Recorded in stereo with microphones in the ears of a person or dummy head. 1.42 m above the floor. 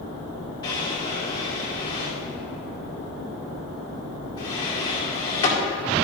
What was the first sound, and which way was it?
A drawer, 20° left (ahead or behind).